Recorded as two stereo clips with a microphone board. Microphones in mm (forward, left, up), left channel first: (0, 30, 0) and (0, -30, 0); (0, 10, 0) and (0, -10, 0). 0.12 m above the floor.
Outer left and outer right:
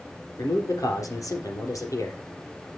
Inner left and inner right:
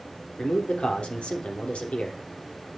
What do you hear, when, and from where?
0.4 s a man speaking: 70° left (ahead or behind), 3.5 m